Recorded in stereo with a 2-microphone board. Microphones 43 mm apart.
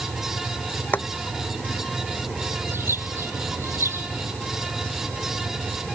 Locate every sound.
0.9 s boiling: 50° left (ahead or behind)
2.7 s a bird: 80° right